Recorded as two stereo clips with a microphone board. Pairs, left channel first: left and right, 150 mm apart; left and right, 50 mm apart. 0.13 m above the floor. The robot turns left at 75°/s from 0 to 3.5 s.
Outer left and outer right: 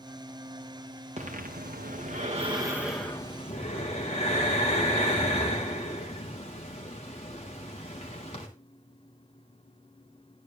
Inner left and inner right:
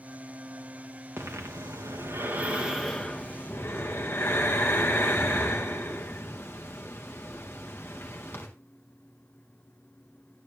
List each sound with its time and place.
1.2 s breathing: 45° right, 5 m; by 8.5 s 135° left, 5 m